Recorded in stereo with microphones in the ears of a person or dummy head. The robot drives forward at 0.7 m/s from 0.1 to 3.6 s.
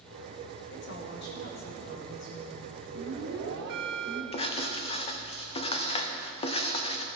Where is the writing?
35° left (ahead or behind), 0.7 m.